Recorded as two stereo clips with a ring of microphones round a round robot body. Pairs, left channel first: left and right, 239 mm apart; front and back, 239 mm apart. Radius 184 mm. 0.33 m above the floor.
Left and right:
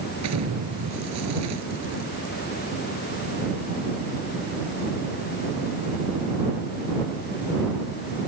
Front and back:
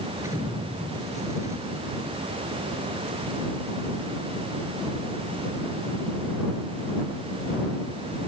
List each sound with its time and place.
0.2 s an explosion: 100° right